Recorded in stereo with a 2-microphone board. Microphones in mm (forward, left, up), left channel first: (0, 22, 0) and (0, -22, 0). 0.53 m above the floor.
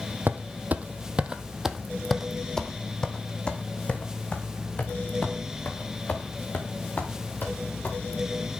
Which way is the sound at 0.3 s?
50° right (ahead or behind).